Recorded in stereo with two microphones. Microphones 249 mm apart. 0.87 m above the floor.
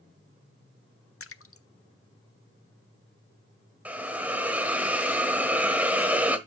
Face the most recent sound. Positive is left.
turn(degrees=-5)  # may be behind; listen again after turning